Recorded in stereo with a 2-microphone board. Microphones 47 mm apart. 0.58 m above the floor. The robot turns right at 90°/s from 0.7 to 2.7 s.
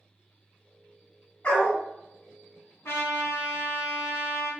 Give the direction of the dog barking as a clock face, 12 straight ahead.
11 o'clock.